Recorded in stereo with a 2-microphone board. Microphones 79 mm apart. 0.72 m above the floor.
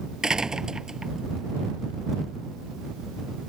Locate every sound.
0.2 s a door slam: 10° right (ahead or behind)